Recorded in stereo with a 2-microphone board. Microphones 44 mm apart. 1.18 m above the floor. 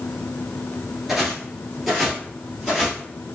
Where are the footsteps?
5° right (ahead or behind), 1.2 m; by 3.0 s centre (ahead or behind), 1.8 m.